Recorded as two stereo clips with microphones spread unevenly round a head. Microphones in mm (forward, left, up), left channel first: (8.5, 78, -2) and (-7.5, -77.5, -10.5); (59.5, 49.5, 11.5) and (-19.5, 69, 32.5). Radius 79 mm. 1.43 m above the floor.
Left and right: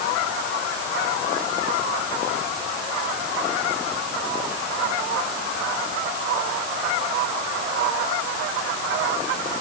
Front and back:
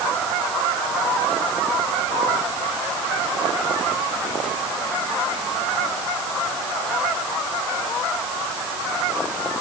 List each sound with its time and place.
Only background noise.